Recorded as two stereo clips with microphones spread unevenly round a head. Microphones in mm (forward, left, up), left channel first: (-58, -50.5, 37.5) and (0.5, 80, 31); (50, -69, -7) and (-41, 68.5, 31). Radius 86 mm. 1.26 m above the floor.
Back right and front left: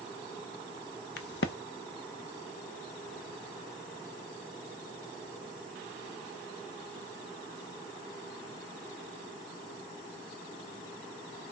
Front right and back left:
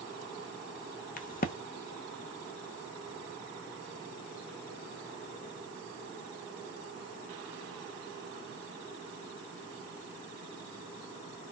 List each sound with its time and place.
1.2 s a crack: 105° right, 0.6 m